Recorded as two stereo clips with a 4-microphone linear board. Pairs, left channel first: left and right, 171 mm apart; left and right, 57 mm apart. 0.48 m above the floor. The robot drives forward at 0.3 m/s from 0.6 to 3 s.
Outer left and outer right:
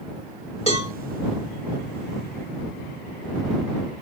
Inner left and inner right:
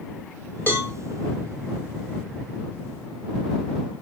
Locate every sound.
0.7 s a cowbell: 35° left (ahead or behind), 1.0 m